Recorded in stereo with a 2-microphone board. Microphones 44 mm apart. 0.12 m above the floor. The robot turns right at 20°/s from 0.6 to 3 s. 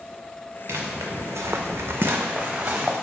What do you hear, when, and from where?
0.7 s footsteps: 65° right (ahead or behind), 0.9 m; by 3.0 s 35° right (ahead or behind), 1.0 m